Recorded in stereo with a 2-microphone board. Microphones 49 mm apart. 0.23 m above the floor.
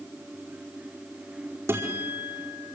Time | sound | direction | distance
1.7 | a guitar | 60° right (ahead or behind) | 4.5 m